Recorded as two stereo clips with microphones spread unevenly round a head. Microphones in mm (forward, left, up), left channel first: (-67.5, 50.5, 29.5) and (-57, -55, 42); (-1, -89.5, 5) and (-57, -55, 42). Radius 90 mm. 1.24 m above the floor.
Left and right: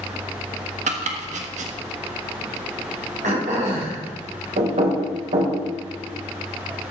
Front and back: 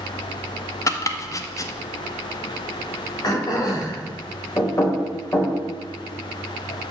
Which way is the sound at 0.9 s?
75° right.